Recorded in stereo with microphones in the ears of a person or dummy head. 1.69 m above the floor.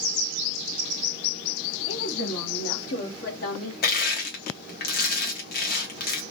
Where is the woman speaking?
45° left (ahead or behind), 2.5 m; by 3.7 s 60° left (ahead or behind), 1.5 m.